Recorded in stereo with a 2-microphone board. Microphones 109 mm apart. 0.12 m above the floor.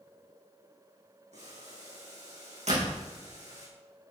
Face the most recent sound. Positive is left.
turn(degrees=-75)  # may be behind; listen again after turning